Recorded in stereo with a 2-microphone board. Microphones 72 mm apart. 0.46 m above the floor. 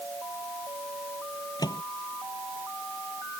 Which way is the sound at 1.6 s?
70° left (ahead or behind).